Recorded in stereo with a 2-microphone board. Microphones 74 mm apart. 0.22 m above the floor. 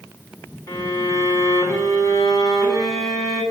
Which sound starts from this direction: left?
A violin, at 0.7 s.